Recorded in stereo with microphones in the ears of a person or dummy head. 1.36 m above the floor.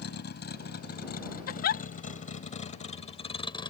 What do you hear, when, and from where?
0.0 s a vehicle: 60° left (ahead or behind); by 3.7 s 25° left (ahead or behind)
1.5 s a giggle: 55° left (ahead or behind)